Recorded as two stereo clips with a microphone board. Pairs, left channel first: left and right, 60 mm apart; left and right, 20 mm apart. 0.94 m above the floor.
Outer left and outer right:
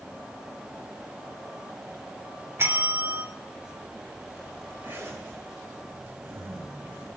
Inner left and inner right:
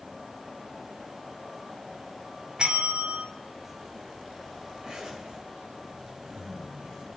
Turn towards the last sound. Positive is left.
turn(degrees=-35)  # may be behind; listen again after turning